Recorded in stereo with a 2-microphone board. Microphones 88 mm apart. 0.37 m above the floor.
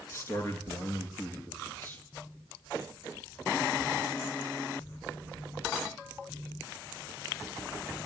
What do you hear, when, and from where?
0.1 s a man speaking: 30° left (ahead or behind), 5 m; by 2.0 s 25° left (ahead or behind), 5.5 m